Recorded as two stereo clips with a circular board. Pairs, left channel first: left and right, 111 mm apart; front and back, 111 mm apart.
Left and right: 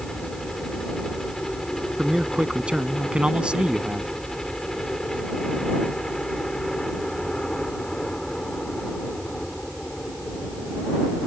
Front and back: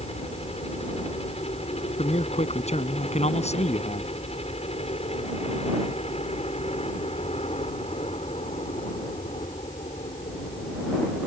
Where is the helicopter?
5° left.